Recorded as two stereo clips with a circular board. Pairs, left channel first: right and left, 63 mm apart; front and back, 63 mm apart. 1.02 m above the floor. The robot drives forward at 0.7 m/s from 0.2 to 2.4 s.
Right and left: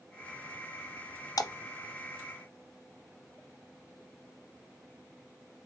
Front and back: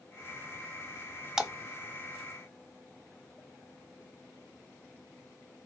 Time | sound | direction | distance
1.4 | a splash | 100° right | 0.5 m